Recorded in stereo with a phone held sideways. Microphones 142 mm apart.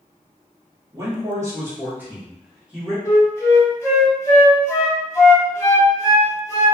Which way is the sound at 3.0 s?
20° left (ahead or behind).